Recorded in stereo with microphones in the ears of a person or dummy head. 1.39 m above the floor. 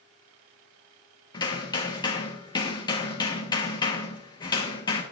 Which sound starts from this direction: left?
Hammering, at 1.3 s.